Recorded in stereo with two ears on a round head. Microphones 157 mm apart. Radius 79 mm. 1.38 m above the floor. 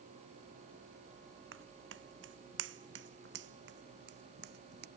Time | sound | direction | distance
1.5 | footsteps | 75° right (ahead or behind) | ?